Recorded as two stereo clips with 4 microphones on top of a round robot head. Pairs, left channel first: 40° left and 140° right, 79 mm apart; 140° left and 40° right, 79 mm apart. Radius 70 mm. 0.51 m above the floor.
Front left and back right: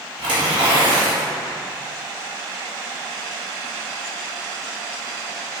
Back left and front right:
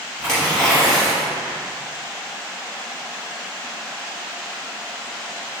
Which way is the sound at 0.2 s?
135° right.